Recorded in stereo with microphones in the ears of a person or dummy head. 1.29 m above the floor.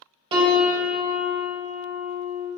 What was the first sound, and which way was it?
A piano, 25° right (ahead or behind).